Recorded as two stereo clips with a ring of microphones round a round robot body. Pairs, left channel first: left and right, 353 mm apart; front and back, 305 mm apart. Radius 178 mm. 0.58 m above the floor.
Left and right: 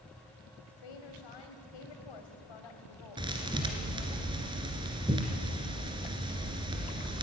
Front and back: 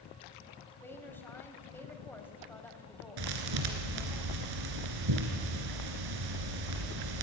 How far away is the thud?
About 2 m.